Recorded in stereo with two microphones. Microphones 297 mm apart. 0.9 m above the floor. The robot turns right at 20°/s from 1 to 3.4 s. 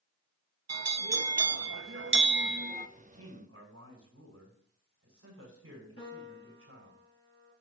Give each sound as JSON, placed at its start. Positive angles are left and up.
{"t": 0.7, "sound": "a bell", "azimuth_deg": -70, "distance_m": 0.6}
{"t": 3.0, "sound": "a man speaking", "side_deg": -60, "distance_m": 6.0}
{"t": 6.0, "sound": "a piano", "side_deg": 50, "distance_m": 7.0}